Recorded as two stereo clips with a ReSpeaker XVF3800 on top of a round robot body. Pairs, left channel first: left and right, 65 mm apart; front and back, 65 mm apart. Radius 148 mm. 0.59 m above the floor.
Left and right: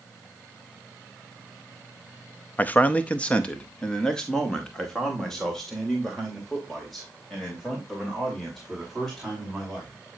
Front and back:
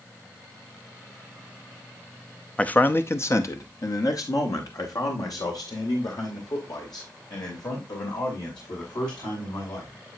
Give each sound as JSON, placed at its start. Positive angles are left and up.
{"t": 2.6, "sound": "a man speaking", "azimuth_deg": 55, "distance_m": 0.8}